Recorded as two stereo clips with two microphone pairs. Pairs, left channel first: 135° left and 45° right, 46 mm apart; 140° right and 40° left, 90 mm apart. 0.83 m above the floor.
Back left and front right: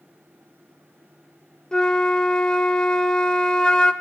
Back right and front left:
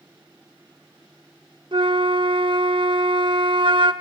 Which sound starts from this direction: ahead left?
A flute, at 1.7 s.